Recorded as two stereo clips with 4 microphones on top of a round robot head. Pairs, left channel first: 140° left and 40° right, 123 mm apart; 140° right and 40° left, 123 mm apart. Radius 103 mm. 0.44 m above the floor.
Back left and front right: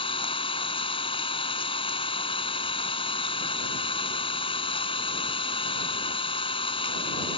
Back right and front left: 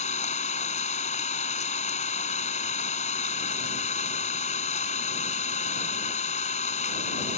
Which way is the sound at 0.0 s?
170° right.